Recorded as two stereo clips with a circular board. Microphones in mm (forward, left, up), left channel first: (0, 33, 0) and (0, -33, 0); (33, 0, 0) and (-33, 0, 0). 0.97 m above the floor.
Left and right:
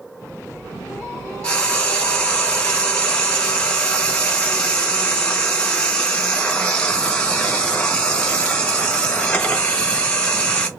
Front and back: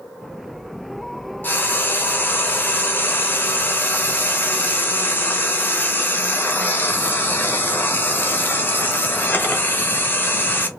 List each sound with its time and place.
1.4 s frying: 25° left, 0.7 m